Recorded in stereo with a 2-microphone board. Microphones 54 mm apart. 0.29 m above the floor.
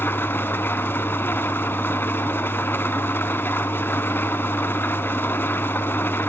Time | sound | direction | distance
0.0 | an engine running | 45° left (ahead or behind) | 1.0 m